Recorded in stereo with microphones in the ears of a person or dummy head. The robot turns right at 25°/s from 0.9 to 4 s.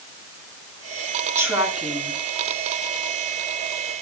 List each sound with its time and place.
1.4 s a woman speaking: 10° right (ahead or behind), 8 m; by 2.2 s 10° left (ahead or behind), 8 m